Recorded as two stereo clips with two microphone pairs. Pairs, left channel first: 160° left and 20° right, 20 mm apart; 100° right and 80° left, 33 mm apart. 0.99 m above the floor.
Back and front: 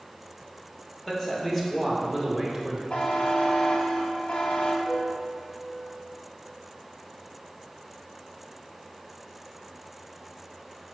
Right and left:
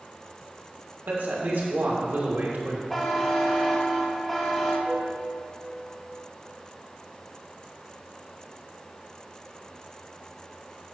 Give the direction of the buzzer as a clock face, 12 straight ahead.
6 o'clock.